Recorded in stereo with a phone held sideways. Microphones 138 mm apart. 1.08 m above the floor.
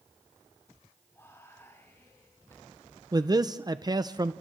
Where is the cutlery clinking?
No cutlery clinking in this recording.